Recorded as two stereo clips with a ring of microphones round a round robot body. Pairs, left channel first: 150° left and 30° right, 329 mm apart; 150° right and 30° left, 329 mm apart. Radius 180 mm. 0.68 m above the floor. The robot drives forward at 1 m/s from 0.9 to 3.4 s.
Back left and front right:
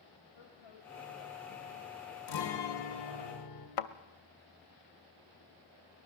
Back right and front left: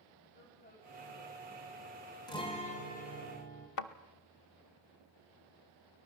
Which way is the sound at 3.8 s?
175° left.